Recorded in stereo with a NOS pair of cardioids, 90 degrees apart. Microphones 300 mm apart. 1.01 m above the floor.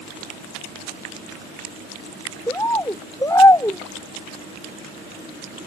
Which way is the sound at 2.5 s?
10° left.